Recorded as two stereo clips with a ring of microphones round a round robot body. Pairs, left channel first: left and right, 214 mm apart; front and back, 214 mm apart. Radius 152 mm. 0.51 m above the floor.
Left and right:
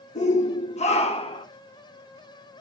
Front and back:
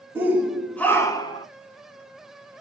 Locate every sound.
0.1 s a shout: 110° left, 1.5 m; by 1.5 s 45° left, 1.5 m